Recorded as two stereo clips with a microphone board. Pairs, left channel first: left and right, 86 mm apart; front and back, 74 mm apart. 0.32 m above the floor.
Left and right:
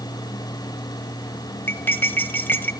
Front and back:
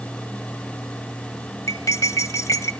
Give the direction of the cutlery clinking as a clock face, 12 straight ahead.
11 o'clock.